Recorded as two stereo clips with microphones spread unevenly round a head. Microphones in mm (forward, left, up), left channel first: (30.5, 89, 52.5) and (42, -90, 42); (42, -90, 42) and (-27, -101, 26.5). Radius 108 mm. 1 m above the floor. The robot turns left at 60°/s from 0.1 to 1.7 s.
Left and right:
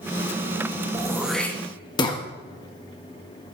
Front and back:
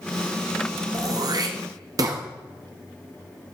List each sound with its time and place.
0.9 s throat clearing: 155° right, 1.5 m; by 2.2 s 160° left, 1.5 m